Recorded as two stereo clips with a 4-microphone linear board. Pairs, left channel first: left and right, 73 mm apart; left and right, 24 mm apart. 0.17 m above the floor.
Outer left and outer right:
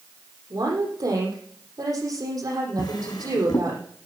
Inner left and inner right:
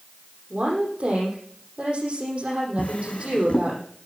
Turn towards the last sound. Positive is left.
turn(degrees=75)  # may be behind; listen again after turning